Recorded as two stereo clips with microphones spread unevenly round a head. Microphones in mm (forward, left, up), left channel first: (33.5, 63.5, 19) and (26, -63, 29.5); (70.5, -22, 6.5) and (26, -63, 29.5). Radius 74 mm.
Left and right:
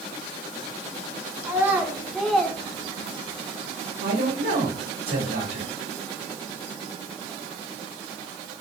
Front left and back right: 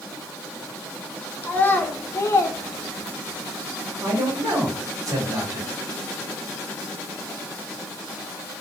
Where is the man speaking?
115° right, 2 m.